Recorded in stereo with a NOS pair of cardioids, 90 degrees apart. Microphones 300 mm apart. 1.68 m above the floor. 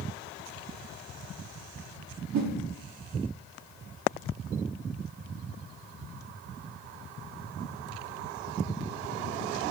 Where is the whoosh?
70° right, 0.8 m.